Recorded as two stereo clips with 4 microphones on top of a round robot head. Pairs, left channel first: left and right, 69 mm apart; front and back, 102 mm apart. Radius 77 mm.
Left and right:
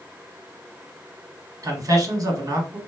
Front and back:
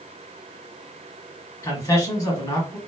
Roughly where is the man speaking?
Ahead right.